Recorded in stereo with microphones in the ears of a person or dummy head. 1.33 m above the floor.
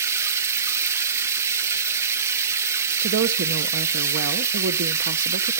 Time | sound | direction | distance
0.0 | running water | 15° right (ahead or behind) | 0.8 m
3.0 | a woman speaking | 70° right (ahead or behind) | 0.9 m